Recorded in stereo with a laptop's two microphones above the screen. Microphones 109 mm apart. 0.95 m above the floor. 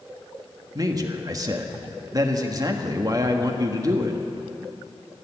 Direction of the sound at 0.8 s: 35° right (ahead or behind).